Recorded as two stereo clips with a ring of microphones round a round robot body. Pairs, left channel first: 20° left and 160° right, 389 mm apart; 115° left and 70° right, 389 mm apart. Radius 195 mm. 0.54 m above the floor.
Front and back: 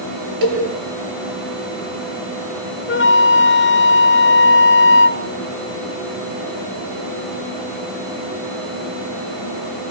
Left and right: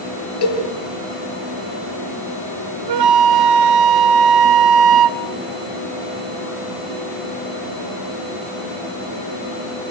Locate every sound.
0.4 s a cowbell: 165° left, 10 m
2.9 s a flute: 40° right, 0.8 m